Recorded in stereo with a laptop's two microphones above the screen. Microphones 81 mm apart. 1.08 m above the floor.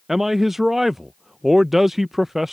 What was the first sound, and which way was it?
A man speaking, 5° right (ahead or behind).